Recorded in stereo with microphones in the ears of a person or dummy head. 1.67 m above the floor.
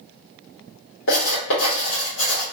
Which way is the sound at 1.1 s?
70° left (ahead or behind).